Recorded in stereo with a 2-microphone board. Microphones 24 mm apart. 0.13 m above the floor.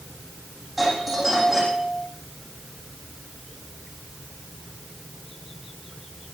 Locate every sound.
0.8 s a doorbell: 5° right (ahead or behind), 8 m